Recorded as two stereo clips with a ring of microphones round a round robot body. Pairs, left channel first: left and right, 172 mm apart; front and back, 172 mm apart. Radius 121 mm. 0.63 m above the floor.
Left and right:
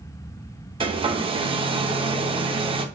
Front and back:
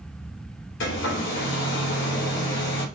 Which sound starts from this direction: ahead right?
A hair dryer, at 0.8 s.